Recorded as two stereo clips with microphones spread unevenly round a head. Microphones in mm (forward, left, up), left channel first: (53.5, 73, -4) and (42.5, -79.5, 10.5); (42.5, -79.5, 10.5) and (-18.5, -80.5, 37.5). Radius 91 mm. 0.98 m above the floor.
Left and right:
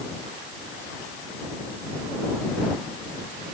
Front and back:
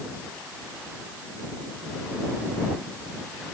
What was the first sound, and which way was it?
Only background noise.